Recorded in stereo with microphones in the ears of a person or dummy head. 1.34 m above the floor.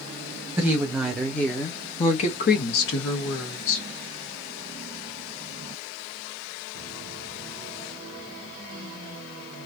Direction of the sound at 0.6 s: 10° right (ahead or behind).